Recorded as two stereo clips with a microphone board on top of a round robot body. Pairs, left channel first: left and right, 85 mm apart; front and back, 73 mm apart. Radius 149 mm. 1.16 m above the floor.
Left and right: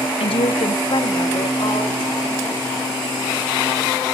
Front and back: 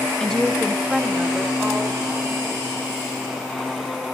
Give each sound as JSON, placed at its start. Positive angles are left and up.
{"t": 0.2, "sound": "a woman speaking", "azimuth_deg": 80, "distance_m": 0.9}